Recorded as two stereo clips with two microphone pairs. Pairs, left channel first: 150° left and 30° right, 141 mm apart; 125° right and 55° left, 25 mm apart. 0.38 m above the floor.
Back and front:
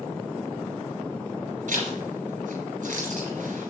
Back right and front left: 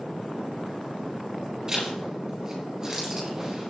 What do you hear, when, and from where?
1.7 s a zipper: 10° right, 3.5 m